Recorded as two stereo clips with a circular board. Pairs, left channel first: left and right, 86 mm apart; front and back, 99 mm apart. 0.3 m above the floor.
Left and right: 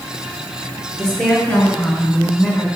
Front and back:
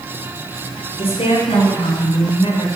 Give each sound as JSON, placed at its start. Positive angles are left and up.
{"t": 1.0, "sound": "a woman speaking", "azimuth_deg": 10, "distance_m": 4.0}